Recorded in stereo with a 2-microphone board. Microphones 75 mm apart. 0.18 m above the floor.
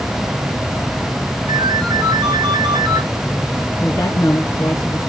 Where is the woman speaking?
50° left (ahead or behind), 2.5 m.